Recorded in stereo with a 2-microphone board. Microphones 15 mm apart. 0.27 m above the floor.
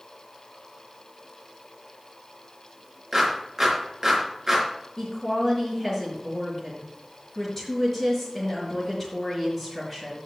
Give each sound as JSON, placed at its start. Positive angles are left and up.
{"t": 3.1, "sound": "a clap", "side_deg": -15, "distance_m": 3.5}
{"t": 5.0, "sound": "a woman speaking", "side_deg": 20, "distance_m": 5.0}